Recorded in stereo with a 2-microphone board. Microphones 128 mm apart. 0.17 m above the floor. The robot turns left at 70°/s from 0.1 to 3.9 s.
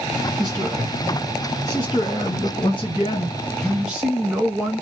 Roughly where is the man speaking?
Behind right.